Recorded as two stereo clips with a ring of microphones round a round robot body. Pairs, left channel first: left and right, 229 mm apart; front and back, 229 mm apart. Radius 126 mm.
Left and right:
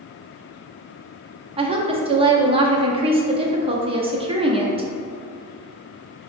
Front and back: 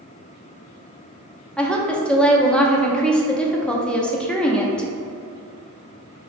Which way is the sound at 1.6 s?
80° right.